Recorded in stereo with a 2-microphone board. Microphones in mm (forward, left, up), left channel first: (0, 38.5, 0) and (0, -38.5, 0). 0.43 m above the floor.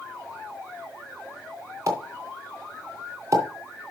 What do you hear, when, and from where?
1.9 s a pop: 45° right (ahead or behind), 3 m